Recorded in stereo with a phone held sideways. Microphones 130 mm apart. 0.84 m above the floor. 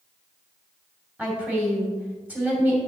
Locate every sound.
1.2 s a woman speaking: 10° right (ahead or behind), 2.5 m